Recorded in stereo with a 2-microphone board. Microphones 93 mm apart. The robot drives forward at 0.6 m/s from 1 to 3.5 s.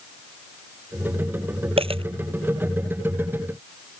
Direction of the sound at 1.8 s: 75° right (ahead or behind).